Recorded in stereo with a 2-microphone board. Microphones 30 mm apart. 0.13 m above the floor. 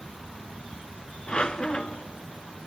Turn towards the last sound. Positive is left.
turn(degrees=35)  # may be behind; listen again after turning